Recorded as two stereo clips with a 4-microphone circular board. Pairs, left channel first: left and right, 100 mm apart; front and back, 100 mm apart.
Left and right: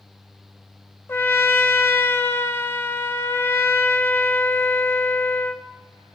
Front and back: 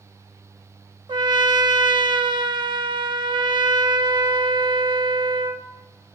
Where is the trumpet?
155° left, 0.6 m.